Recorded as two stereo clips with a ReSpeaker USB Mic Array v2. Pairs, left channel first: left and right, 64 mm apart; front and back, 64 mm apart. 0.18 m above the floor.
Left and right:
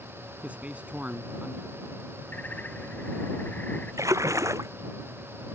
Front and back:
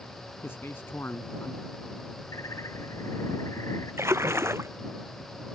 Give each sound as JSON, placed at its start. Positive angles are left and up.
{"t": 0.4, "sound": "a man speaking", "azimuth_deg": -30}
{"t": 2.3, "sound": "a bird", "azimuth_deg": 25}
{"t": 4.0, "sound": "a splash", "azimuth_deg": -130}